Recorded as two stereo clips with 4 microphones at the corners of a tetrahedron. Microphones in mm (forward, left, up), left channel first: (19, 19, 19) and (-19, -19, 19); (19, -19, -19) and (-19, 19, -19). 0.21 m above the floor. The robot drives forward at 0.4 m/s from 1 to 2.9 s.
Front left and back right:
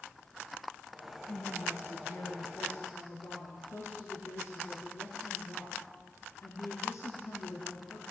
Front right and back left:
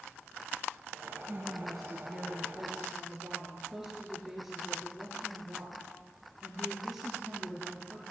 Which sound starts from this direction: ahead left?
A woman speaking, at 1.3 s.